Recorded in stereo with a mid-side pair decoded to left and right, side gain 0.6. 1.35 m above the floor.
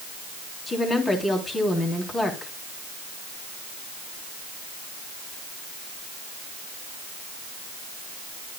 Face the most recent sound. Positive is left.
turn(degrees=25)